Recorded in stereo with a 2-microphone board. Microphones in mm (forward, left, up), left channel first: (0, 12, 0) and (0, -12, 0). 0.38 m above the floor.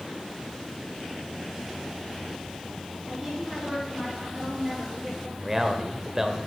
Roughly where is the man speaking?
Centre.